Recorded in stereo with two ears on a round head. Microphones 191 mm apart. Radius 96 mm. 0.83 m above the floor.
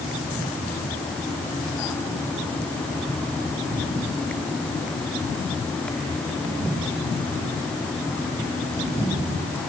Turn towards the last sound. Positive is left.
No sound to turn to.